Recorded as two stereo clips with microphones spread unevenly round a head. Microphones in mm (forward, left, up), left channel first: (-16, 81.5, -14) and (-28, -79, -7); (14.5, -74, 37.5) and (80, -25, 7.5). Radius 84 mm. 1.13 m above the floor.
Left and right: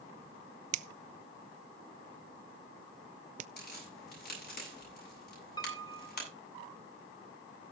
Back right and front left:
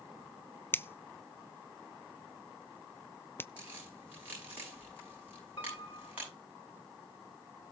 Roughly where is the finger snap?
Ahead right.